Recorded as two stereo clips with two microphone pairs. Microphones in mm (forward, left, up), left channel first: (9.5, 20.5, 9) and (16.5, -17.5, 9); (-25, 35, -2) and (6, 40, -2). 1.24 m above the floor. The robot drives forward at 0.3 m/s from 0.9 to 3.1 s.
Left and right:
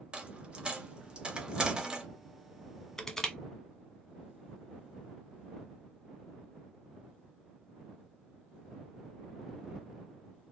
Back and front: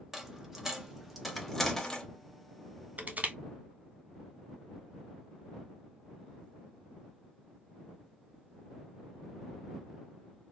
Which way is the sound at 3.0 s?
25° left.